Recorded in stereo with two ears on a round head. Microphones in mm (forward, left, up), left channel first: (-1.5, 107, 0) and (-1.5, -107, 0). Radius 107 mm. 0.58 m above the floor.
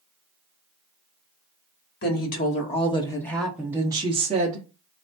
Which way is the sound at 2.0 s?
45° left (ahead or behind).